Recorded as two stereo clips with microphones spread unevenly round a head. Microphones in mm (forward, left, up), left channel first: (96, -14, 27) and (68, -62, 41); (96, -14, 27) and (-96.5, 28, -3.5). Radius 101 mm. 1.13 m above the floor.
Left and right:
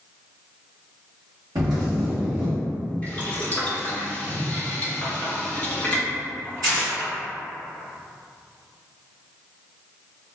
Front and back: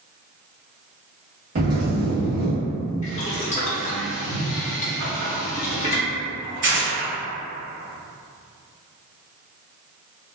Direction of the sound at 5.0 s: 170° left.